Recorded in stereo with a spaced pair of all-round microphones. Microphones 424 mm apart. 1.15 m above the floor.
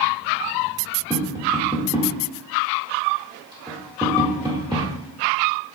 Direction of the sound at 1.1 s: 10° right (ahead or behind).